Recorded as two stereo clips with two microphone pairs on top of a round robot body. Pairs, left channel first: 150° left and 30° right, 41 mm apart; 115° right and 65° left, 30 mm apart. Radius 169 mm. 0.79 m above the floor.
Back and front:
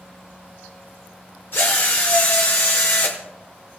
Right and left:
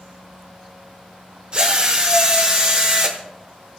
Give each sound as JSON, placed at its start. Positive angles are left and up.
{"t": 1.5, "sound": "a drill", "azimuth_deg": 115, "distance_m": 1.0}